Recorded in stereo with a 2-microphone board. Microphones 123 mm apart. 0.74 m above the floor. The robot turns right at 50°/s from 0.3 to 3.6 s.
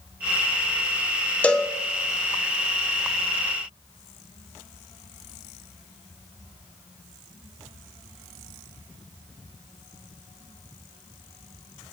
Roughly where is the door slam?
I don't hear a door slam.